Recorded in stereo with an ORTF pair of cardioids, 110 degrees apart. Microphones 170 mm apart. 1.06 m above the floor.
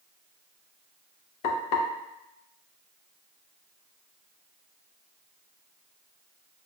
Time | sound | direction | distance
1.4 | frying | 65° left | 0.8 m